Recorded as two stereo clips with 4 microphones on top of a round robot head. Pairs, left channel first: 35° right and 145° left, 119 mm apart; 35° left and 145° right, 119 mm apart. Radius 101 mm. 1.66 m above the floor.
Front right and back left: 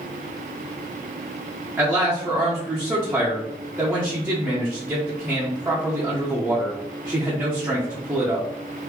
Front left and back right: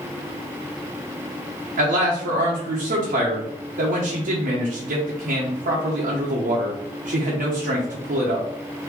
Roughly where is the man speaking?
Behind right.